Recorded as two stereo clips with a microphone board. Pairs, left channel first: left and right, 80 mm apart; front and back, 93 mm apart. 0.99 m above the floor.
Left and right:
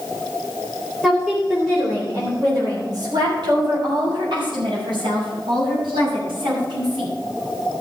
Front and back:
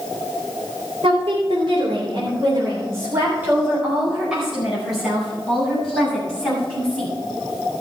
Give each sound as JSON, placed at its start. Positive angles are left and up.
{"t": 1.0, "sound": "a woman speaking", "azimuth_deg": -165, "distance_m": 3.5}